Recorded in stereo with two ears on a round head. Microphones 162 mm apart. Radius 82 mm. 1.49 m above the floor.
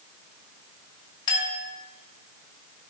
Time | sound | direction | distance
1.3 | a clink | 25° left (ahead or behind) | 1.9 m